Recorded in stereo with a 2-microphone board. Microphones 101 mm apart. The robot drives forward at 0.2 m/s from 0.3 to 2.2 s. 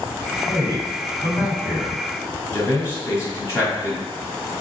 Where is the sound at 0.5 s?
35° left (ahead or behind), 1.4 m; by 2.0 s 30° left (ahead or behind), 1.5 m.